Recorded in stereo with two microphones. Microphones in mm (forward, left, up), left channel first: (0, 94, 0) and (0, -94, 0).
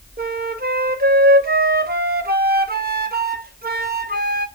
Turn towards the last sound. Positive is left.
turn(degrees=-55)  # may be behind; listen again after turning